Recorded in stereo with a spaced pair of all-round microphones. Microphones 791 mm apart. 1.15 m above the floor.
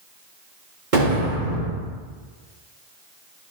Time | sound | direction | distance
0.9 | an explosion | 70° right (ahead or behind) | 3 m